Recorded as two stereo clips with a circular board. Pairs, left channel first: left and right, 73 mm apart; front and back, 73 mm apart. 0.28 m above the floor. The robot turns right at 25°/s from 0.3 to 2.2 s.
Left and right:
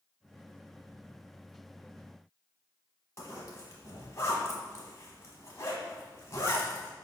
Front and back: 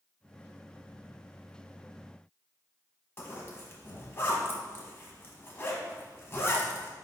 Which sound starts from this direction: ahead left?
A zipper, at 3.2 s.